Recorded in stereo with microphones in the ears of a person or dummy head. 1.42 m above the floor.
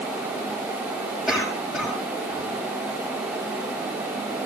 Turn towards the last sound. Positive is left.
turn(degrees=0)  # may be behind; listen again after turning